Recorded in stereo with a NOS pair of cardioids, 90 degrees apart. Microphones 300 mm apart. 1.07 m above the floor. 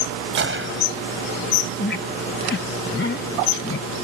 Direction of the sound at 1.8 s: 40° left.